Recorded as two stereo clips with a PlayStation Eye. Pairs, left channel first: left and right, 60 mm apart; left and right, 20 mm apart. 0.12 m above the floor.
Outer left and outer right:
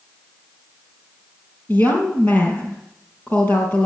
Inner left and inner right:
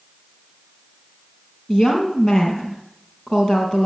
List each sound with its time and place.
1.7 s a woman speaking: 35° left (ahead or behind), 3.5 m